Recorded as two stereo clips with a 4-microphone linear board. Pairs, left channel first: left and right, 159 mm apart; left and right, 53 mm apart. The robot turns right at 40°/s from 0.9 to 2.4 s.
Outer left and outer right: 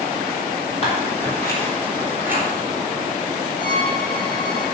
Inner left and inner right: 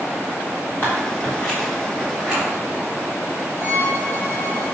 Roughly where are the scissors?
Left.